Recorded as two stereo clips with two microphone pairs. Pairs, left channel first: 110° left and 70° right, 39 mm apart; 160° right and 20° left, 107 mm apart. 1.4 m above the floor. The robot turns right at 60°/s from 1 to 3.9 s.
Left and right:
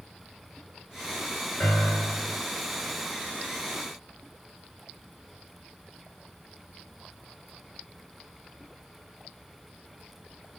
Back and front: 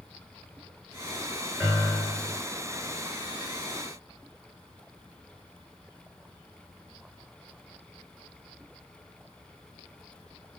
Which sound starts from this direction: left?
A piano, at 1.6 s.